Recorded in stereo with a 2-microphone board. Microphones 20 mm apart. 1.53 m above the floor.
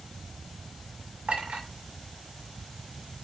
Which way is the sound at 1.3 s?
80° right.